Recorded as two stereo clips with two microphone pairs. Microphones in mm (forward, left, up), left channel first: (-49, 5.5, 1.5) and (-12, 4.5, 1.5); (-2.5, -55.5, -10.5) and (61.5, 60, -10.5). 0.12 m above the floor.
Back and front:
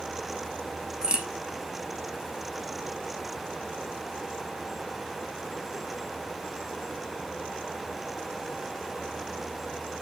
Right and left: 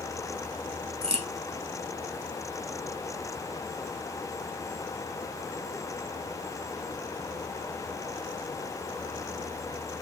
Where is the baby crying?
I don't hear a baby crying.